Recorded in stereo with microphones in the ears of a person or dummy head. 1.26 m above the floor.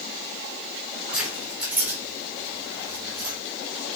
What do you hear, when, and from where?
1.1 s keys jangling: centre (ahead or behind), 3 m; by 3.4 s 10° right (ahead or behind), 3.5 m